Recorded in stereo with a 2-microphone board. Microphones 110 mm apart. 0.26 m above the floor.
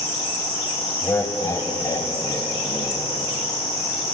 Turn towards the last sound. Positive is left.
turn(degrees=40)  # may be behind; listen again after turning